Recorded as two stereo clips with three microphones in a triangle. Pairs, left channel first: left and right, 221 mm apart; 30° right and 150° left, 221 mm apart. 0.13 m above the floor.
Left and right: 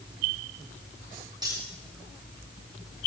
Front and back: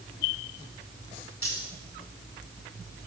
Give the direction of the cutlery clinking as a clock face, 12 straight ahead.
1 o'clock.